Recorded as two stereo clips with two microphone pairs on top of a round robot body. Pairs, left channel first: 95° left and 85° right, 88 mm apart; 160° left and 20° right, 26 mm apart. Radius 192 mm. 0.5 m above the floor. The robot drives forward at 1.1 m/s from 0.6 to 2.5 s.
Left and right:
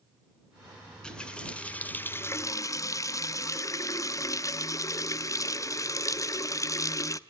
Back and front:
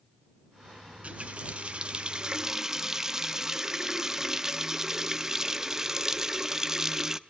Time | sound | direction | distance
0.9 | a running tap | 15° left | 2.5 m